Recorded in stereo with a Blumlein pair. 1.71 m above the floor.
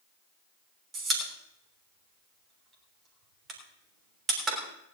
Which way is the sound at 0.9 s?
20° right.